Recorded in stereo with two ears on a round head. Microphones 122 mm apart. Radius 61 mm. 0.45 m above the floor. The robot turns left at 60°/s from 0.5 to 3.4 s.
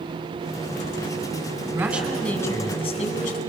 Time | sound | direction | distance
1.7 | a man speaking | 155° right | 4.5 m